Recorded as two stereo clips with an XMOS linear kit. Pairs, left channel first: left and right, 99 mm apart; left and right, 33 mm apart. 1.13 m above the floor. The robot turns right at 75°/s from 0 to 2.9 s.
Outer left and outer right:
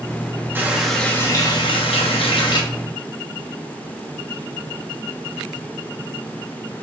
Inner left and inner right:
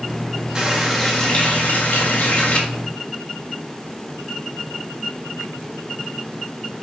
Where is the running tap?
25° right, 0.8 m; by 2.6 s 130° left, 0.8 m.